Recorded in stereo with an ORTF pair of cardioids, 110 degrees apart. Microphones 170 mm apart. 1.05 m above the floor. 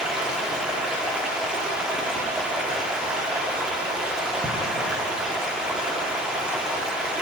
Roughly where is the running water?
Ahead.